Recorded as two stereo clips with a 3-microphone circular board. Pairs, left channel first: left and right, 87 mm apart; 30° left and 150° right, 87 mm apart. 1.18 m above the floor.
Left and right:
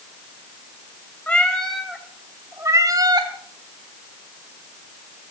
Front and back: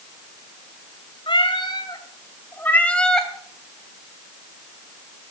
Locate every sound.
1.3 s a cat meowing: 20° left, 2 m; by 3.3 s 55° right, 2.5 m